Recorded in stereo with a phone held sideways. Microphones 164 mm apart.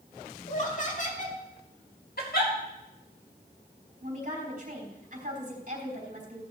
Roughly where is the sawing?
I don't hear sawing.